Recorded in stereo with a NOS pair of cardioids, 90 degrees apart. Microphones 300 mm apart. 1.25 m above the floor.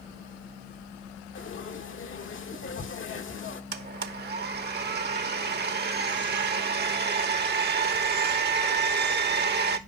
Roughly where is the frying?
Ahead left.